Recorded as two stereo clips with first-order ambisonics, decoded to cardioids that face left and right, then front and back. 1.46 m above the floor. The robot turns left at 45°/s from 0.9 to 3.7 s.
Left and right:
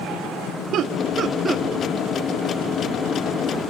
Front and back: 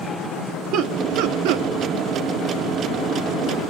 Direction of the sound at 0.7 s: 140° right.